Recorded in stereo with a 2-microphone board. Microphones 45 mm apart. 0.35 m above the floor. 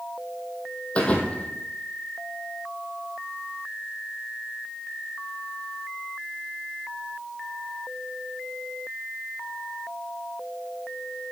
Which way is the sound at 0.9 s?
30° left (ahead or behind).